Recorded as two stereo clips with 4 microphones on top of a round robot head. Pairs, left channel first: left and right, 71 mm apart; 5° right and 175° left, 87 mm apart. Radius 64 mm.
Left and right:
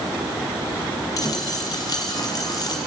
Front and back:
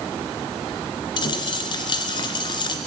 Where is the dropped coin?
30° left, 2 m.